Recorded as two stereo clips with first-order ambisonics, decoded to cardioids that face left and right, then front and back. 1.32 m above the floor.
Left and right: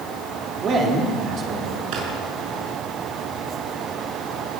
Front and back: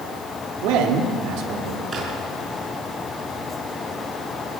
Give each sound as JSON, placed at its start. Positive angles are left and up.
{"t": 0.6, "sound": "a man speaking", "azimuth_deg": -155, "distance_m": 3.5}
{"t": 1.9, "sound": "a drawer", "azimuth_deg": -110, "distance_m": 6.5}